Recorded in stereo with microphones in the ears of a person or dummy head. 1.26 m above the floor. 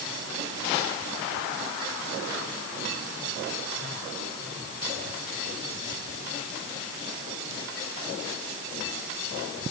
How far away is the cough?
I don't hear a cough.